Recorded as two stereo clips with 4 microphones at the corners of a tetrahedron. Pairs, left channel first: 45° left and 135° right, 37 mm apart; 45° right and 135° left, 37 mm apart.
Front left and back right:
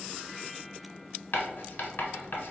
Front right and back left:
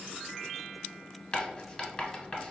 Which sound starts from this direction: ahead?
Writing, at 1.3 s.